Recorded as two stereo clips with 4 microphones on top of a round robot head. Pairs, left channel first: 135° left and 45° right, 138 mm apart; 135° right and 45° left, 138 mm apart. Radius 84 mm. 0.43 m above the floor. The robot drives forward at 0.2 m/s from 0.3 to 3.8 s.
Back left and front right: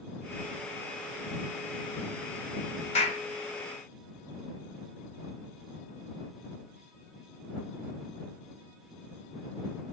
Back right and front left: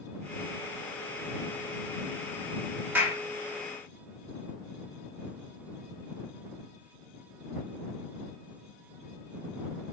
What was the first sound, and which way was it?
A clap, 120° left.